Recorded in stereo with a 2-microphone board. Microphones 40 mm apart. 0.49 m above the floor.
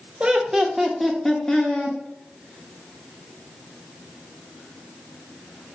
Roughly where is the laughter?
Right.